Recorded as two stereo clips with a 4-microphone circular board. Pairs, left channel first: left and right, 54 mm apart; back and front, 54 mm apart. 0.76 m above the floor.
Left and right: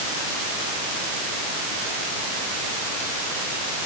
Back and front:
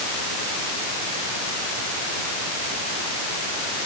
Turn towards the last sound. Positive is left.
No sound to turn to.